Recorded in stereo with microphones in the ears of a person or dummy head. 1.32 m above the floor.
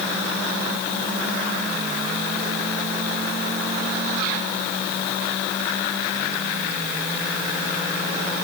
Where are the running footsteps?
I don't hear running footsteps.